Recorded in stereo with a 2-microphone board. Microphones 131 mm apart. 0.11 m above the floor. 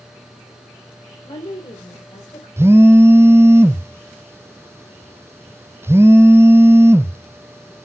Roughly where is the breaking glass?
I don't hear breaking glass.